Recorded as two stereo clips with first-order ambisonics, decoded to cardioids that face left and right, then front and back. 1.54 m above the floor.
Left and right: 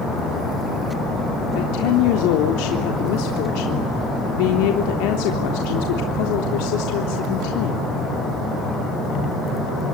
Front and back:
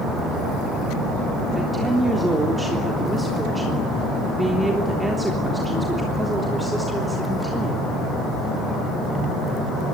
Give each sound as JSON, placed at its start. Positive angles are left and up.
{"t": 1.5, "sound": "a woman speaking", "azimuth_deg": 95, "distance_m": 3.5}